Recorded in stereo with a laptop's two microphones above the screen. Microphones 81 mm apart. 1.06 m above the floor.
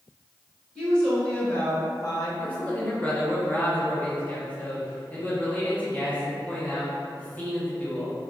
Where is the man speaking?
20° left (ahead or behind), 0.7 m.